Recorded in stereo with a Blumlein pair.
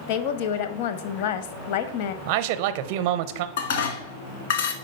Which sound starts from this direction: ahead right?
A man speaking, at 2.2 s.